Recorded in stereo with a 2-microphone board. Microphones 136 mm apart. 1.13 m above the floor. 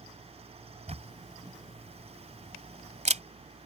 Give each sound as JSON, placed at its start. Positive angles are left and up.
{"t": 0.9, "sound": "a camera shutter", "side_deg": -60}